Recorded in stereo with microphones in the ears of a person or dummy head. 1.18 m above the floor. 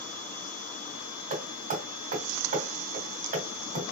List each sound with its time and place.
1.3 s hammering: 50° right (ahead or behind), 2.5 m